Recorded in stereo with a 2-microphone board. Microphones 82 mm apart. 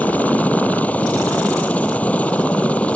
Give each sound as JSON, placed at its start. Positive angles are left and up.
{"t": 0.0, "sound": "a helicopter", "side_deg": 20}